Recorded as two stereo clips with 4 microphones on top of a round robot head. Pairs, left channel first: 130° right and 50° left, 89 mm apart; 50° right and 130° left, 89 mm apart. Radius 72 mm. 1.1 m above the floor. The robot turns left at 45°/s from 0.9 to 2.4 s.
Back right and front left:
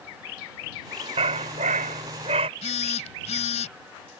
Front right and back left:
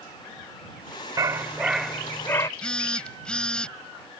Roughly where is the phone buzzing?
Behind right.